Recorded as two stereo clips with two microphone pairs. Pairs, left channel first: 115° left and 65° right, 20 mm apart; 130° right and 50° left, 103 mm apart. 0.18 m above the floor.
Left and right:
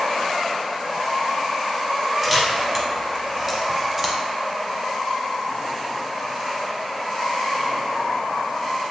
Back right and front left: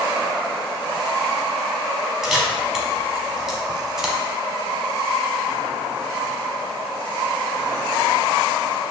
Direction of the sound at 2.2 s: 20° right.